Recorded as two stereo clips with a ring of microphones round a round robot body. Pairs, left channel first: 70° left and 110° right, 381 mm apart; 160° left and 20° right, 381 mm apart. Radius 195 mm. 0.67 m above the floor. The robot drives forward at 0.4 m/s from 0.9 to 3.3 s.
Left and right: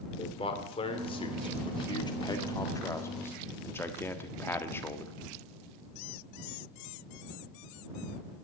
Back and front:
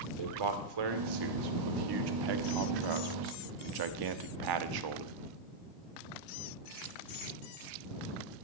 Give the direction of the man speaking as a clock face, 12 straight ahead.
12 o'clock.